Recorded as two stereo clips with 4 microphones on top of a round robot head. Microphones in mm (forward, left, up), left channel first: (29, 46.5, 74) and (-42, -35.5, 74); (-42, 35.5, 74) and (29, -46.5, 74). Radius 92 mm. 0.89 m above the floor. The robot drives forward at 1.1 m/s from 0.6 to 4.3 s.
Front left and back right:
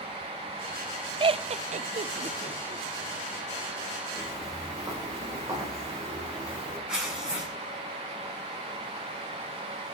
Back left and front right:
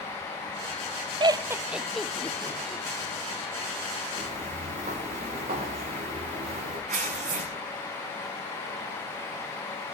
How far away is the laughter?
About 0.8 m.